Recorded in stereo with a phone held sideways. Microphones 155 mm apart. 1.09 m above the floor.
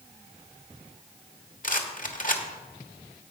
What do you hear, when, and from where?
1.6 s a rattle: 55° left (ahead or behind), 1.1 m